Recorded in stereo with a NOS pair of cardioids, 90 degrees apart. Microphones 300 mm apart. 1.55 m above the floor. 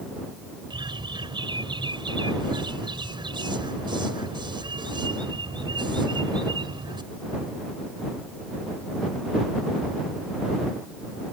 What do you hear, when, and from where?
0.7 s a bird: 15° right